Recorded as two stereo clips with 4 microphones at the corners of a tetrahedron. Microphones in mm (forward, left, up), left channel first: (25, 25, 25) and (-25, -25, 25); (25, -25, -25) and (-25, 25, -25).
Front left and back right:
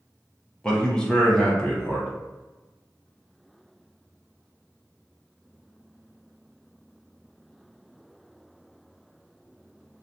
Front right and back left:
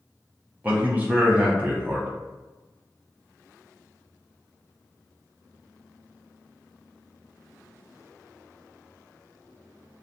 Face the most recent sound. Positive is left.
turn(degrees=110)